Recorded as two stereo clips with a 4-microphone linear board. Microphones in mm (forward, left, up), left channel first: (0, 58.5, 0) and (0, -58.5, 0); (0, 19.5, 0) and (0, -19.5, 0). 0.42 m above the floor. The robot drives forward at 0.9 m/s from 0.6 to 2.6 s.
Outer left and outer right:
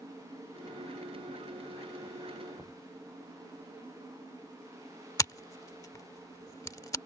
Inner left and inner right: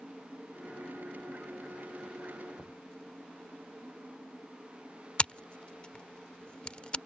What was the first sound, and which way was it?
Knocking, centre (ahead or behind).